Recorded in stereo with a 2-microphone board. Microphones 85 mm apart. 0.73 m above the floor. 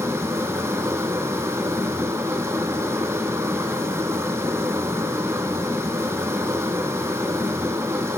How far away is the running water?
About 2.5 m.